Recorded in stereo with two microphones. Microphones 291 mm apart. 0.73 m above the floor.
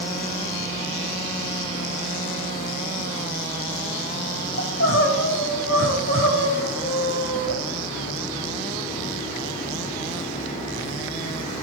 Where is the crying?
40° left (ahead or behind), 5.5 m.